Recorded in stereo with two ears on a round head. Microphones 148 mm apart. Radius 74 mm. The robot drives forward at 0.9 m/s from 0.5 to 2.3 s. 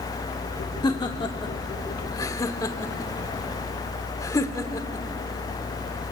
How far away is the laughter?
About 1.0 m.